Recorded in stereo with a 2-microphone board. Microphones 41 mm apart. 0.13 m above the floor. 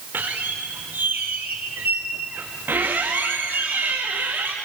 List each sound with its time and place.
0.1 s a squeak: 60° right (ahead or behind), 4 m